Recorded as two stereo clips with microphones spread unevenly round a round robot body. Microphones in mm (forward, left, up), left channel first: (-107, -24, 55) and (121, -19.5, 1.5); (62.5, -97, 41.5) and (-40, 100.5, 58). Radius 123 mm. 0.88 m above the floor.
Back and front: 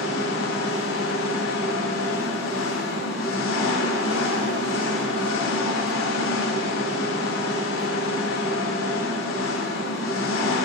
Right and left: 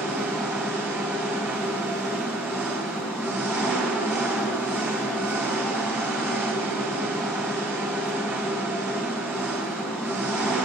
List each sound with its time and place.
0.0 s an engine running: 160° right, 3.5 m